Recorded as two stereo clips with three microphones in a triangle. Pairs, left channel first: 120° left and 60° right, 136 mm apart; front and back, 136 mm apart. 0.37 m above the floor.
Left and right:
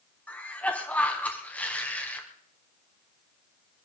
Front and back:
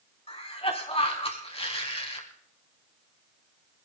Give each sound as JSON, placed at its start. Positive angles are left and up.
{"t": 0.3, "sound": "a cough", "azimuth_deg": 40, "distance_m": 3.5}